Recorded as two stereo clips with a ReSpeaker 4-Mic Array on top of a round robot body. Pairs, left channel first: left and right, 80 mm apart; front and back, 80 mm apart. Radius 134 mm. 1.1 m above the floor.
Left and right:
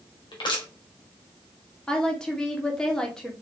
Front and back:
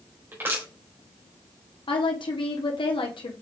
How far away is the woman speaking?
About 2.5 m.